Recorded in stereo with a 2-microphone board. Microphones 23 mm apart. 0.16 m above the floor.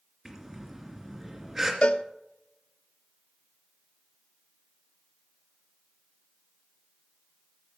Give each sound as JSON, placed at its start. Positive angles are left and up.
{"t": 0.2, "sound": "breathing", "side_deg": -10, "distance_m": 2.0}
{"t": 1.8, "sound": "a cowbell", "side_deg": 70, "distance_m": 0.6}